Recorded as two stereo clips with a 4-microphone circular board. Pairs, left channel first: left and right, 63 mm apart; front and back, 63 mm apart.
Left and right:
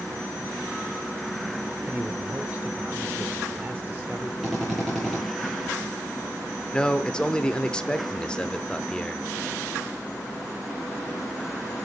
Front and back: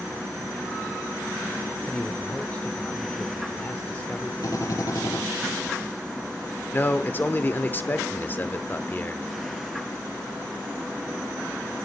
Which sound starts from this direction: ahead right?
A man speaking, at 1.8 s.